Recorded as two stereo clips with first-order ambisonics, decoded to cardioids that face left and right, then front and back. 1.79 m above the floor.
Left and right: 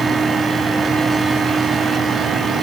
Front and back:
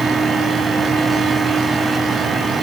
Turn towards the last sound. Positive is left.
No sound to turn to.